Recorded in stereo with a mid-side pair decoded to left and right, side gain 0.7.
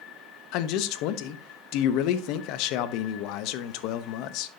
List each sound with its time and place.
0.5 s a man speaking: 65° left, 0.9 m